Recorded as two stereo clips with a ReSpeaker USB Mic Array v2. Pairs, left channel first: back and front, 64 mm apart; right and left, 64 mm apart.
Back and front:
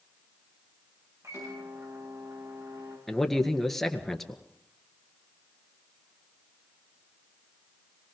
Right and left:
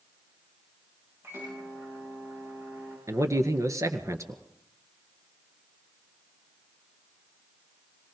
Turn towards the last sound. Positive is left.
turn(degrees=95)